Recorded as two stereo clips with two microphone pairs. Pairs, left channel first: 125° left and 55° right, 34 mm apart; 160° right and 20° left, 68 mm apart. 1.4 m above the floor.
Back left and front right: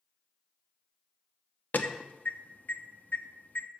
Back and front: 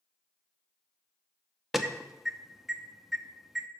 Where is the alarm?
105° left, 0.6 m.